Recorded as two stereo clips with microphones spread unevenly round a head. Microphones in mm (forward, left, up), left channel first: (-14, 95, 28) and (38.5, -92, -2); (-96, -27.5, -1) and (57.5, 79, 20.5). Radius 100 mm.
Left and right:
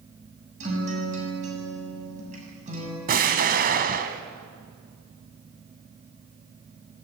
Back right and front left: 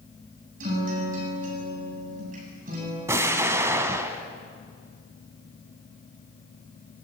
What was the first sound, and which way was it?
A guitar, 20° right.